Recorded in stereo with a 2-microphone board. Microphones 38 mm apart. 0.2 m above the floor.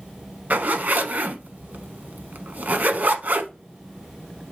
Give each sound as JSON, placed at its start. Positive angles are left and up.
{"t": 0.5, "sound": "a zipper", "side_deg": -50, "distance_m": 0.8}